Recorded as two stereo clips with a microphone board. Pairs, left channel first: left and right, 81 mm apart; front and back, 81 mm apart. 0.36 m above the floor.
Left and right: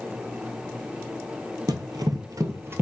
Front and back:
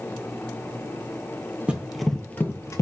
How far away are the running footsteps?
About 0.6 m.